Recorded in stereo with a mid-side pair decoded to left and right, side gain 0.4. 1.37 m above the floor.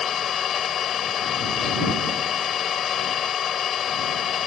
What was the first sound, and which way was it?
An engine running, 60° left.